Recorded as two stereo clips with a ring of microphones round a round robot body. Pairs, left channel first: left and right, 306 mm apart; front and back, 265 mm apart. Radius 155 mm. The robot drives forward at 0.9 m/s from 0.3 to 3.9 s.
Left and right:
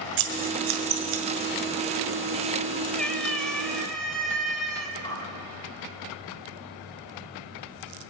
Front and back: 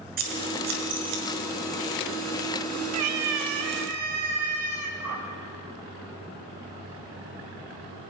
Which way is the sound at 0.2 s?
115° right.